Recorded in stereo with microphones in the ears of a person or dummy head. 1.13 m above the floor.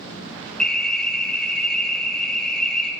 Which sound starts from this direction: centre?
An alarm, at 0.6 s.